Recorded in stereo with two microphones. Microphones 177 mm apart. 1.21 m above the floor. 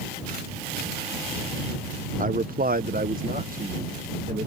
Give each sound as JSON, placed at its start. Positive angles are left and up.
{"t": 2.2, "sound": "a man speaking", "side_deg": -50}